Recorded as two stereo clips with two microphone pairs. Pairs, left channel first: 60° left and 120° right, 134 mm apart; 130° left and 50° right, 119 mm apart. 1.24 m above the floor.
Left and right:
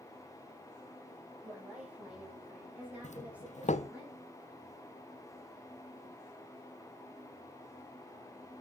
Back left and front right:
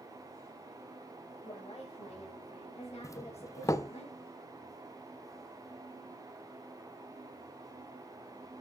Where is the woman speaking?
160° left, 5.5 m.